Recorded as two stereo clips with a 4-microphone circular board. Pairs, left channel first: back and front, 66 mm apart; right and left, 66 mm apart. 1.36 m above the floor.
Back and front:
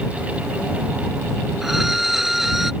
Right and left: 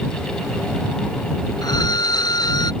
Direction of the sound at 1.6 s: 85° right.